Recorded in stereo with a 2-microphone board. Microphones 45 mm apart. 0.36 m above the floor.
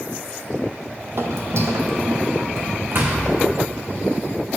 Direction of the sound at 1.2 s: 70° right (ahead or behind).